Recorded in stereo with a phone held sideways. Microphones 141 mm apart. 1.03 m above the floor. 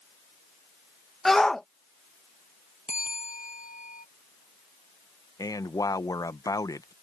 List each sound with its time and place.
1.2 s a shout: 5° left (ahead or behind)
2.9 s a bell: 70° left (ahead or behind)
5.4 s a man speaking: 25° left (ahead or behind)